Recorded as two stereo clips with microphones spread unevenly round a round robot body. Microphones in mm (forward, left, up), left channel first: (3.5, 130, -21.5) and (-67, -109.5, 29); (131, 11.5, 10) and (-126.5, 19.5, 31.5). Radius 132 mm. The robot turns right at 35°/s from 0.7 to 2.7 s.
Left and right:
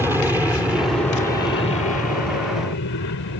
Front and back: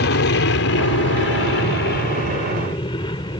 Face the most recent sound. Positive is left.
turn(degrees=65)